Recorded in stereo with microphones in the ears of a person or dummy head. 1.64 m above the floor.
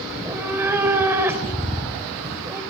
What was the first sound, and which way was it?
A cat meowing, 15° right (ahead or behind).